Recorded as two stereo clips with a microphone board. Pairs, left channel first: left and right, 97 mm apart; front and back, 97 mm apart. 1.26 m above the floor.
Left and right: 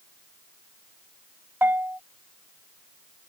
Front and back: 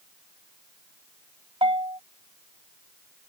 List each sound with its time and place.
1.6 s a bell: 160° right